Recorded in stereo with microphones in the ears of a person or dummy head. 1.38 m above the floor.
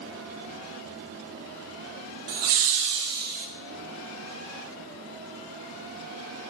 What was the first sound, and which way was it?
Laughter, 65° right (ahead or behind).